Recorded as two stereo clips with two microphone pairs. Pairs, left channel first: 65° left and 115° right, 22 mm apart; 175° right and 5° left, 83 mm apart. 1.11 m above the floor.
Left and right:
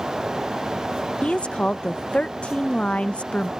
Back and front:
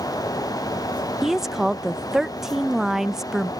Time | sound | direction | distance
1.2 | a woman speaking | 90° left | ?